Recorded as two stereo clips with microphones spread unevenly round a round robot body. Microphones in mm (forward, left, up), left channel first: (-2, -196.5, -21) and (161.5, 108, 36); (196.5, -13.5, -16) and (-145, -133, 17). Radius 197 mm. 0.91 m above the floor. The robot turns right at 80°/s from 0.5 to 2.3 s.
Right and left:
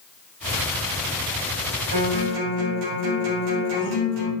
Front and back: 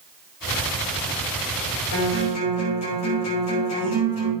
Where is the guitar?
60° left, 5 m; by 4.3 s 90° left, 5 m.